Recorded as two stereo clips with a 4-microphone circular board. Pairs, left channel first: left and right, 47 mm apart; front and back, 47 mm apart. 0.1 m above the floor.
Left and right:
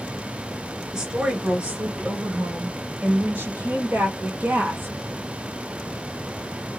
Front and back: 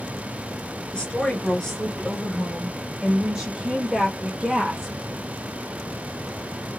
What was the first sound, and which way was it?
A woman speaking, 35° right.